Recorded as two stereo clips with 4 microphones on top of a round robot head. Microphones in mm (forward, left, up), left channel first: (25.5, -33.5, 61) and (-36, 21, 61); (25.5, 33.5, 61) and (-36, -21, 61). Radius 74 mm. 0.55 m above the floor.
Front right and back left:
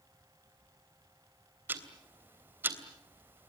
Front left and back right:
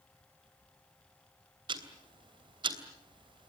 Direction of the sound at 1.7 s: 155° right.